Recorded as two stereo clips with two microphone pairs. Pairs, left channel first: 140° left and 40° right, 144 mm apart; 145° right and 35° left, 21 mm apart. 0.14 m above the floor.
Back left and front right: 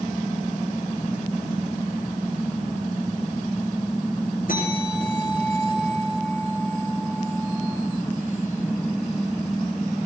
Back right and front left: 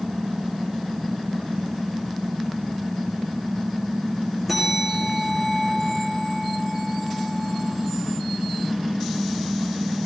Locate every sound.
4.5 s a bell: 120° left, 10 m